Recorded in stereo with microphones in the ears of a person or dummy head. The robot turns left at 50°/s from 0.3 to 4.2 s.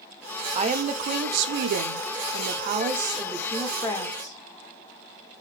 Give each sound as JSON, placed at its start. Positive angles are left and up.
{"t": 0.6, "sound": "a woman speaking", "azimuth_deg": -30, "distance_m": 0.5}